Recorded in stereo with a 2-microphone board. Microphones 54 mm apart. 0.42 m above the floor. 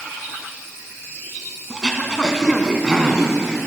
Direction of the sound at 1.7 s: 15° right (ahead or behind).